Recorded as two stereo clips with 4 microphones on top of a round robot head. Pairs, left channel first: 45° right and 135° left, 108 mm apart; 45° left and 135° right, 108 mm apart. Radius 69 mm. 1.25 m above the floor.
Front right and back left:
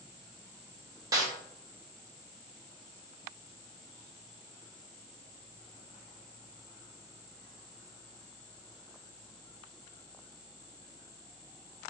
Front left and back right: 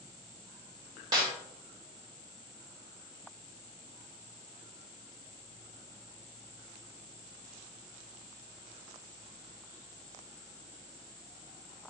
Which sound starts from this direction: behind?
A snare drum, at 1.1 s.